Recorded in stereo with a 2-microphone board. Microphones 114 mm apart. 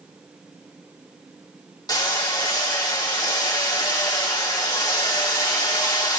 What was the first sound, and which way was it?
Hammering, 40° left (ahead or behind).